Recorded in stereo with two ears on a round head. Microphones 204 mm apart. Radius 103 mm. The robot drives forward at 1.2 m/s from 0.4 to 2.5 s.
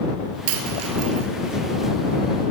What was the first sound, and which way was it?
A dropped coin, 65° right (ahead or behind).